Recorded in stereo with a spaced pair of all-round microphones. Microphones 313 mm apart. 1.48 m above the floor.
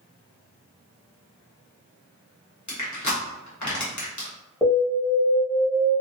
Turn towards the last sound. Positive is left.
turn(degrees=10)  # may be behind; listen again after turning